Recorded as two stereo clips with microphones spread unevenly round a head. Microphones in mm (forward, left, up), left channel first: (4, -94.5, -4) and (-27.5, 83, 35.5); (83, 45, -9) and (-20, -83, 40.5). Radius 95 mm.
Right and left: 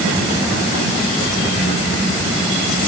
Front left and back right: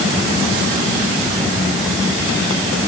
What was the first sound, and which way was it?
Only background noise.